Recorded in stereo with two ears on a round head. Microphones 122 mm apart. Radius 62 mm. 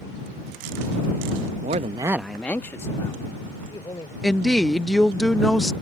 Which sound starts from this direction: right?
A man speaking, at 1.6 s.